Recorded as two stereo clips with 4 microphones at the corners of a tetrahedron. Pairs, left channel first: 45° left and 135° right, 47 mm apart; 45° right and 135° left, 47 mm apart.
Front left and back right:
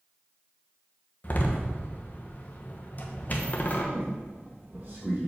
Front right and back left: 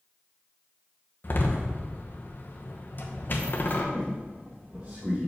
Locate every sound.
1.2 s a door slam: 5° right, 1.0 m
3.9 s a squeak: 175° right, 2.5 m